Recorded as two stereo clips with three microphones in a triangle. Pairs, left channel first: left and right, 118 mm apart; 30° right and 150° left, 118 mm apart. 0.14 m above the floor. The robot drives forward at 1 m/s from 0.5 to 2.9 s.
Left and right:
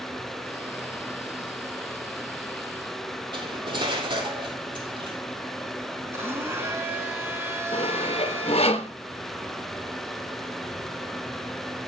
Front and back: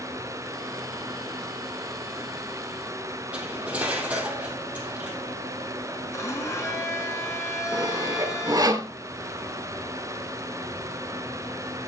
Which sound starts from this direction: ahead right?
A blender, at 6.1 s.